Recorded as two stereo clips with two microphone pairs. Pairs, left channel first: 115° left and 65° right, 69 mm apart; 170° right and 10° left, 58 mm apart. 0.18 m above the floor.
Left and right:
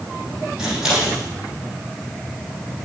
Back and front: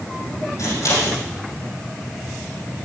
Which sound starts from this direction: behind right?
Scissors, at 0.6 s.